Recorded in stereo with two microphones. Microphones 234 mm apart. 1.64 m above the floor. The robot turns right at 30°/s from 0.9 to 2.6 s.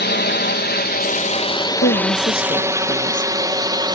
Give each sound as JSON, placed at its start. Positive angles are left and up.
{"t": 0.0, "sound": "a drone", "side_deg": 45}
{"t": 1.8, "sound": "a woman speaking", "side_deg": 55}